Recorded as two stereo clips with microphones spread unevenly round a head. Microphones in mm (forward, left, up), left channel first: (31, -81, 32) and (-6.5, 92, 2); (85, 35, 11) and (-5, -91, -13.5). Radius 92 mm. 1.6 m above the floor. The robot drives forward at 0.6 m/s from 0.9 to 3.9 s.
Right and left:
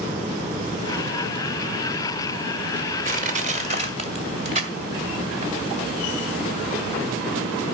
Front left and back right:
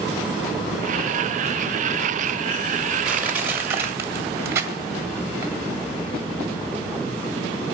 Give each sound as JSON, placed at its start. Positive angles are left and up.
{"t": 3.0, "sound": "crushing", "azimuth_deg": 140, "distance_m": 1.6}